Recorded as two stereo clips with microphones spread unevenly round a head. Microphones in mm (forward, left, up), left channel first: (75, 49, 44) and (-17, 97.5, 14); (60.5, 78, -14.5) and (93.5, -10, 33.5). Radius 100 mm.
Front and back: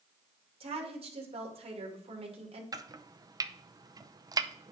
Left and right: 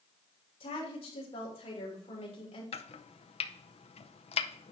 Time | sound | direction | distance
0.6 | a woman speaking | 135° left | 2.5 m
2.7 | chopping | 95° left | 0.7 m